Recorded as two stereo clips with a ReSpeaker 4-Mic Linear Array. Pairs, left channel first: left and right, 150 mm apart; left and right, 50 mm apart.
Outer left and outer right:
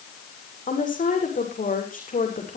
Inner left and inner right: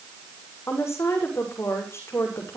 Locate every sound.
0.7 s a woman speaking: 60° left (ahead or behind), 7.5 m